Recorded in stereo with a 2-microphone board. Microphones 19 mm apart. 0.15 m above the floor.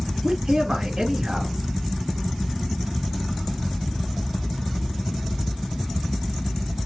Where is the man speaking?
45° right (ahead or behind), 2.0 m.